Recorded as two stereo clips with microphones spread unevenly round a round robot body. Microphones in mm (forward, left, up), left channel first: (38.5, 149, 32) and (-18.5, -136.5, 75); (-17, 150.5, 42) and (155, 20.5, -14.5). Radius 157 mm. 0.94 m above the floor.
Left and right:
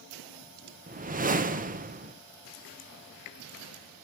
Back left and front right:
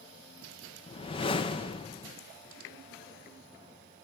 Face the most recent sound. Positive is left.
turn(degrees=-145)